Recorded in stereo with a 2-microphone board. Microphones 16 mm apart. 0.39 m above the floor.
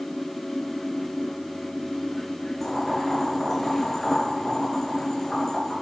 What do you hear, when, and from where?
2.6 s boiling: 30° left (ahead or behind), 4.5 m